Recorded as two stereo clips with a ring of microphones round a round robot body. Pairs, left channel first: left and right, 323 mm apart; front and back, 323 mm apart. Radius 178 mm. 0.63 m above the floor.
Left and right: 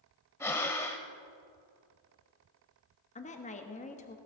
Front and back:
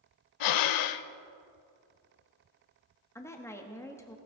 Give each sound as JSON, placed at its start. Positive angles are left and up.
{"t": 0.4, "sound": "breathing", "azimuth_deg": 10, "distance_m": 0.5}
{"t": 3.1, "sound": "a woman speaking", "azimuth_deg": 70, "distance_m": 1.1}